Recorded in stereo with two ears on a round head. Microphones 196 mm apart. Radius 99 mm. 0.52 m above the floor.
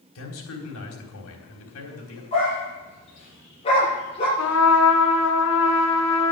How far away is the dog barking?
About 7.5 m.